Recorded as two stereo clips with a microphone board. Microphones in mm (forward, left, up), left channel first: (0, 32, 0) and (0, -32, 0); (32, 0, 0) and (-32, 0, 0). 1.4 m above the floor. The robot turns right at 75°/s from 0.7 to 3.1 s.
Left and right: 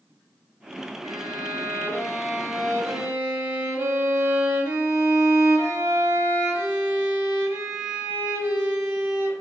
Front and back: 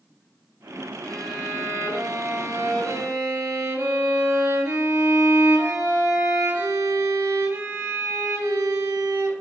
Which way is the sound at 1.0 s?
75° left.